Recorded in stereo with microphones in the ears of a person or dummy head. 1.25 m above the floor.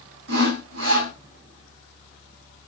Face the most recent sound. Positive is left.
turn(degrees=-70)  # may be behind; listen again after turning